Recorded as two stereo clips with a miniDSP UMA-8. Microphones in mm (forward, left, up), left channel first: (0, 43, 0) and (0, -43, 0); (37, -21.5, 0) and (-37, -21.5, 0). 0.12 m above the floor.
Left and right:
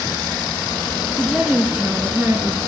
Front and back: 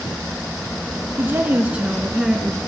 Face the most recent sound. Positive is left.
turn(degrees=-85)